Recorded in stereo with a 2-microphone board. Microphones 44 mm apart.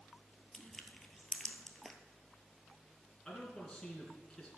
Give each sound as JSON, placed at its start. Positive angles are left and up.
{"t": 0.5, "sound": "crushing", "side_deg": 10, "distance_m": 1.0}
{"t": 3.2, "sound": "a man speaking", "side_deg": 10, "distance_m": 3.0}